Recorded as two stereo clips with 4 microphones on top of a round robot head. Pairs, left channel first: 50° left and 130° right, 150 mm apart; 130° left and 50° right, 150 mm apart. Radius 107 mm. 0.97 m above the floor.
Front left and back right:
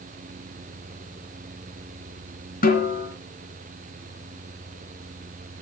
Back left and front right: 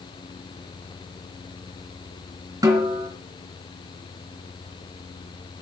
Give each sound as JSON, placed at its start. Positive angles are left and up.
{"t": 2.6, "sound": "a snare drum", "azimuth_deg": 15, "distance_m": 3.0}